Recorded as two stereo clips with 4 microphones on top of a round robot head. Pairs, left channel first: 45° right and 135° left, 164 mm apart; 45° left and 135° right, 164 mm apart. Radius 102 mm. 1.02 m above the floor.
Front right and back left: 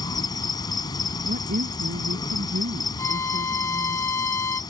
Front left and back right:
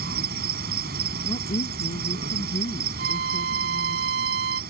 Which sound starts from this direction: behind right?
A violin, at 3.0 s.